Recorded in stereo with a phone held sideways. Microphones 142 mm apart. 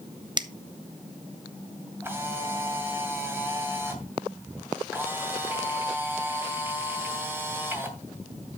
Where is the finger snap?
30° right (ahead or behind), 0.6 m.